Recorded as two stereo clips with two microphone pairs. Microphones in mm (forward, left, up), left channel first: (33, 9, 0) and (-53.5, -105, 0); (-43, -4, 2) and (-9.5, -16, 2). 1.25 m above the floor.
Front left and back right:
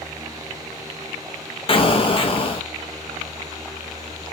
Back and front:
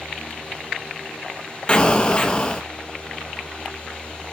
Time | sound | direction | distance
1.7 | an explosion | 100° left | 0.7 m